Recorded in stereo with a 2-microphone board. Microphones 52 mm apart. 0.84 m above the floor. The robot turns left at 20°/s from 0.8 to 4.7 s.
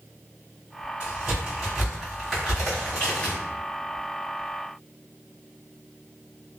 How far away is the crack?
About 1.5 m.